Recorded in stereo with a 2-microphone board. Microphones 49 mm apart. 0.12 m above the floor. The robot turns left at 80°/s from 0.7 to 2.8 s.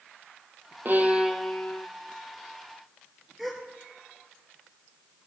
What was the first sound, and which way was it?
A violin, 130° right.